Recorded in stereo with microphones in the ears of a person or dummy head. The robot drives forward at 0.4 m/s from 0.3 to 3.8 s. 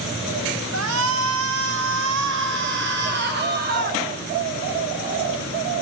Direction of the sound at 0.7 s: 80° right.